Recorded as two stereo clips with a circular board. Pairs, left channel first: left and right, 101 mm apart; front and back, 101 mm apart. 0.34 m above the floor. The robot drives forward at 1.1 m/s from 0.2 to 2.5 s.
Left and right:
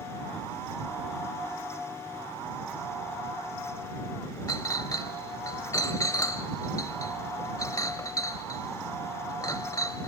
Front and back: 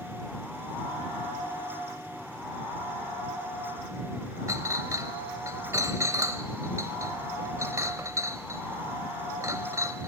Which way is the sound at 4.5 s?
130° left.